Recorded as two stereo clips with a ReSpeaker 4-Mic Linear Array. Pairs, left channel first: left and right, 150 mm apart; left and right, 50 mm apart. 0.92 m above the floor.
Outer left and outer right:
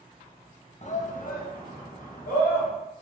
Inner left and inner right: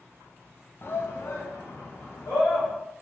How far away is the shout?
About 0.6 m.